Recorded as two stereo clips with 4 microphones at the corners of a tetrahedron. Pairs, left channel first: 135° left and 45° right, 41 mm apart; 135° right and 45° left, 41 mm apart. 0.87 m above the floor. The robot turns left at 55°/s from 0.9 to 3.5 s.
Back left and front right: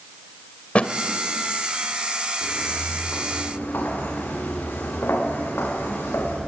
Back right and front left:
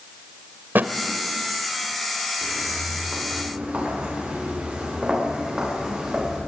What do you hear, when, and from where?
0.8 s a thud: 80° left, 1.4 m
2.4 s footsteps: 160° left, 7 m; by 6.4 s 120° left, 8 m